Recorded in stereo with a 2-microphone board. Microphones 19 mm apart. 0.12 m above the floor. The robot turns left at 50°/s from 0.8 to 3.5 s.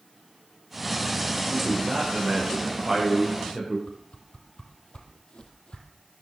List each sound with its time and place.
1.5 s a man speaking: 105° right, 9.5 m; by 3.8 s 155° left, 9.5 m
3.9 s a whoosh: 65° left (ahead or behind), 2.5 m